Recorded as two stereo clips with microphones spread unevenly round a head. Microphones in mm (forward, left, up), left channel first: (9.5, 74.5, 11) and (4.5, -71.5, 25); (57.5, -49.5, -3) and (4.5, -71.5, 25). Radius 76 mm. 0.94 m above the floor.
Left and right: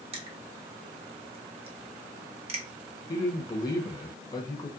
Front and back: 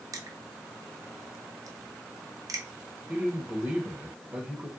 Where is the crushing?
125° right, 1.0 m.